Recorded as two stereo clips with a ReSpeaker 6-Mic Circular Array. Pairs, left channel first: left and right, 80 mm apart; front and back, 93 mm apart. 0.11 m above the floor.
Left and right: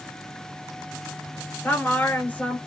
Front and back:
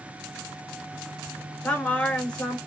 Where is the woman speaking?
60° left, 1.1 m.